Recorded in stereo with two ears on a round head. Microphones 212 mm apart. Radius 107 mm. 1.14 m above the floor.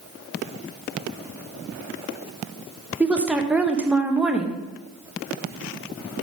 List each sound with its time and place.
3.0 s a woman speaking: 5° right (ahead or behind), 0.9 m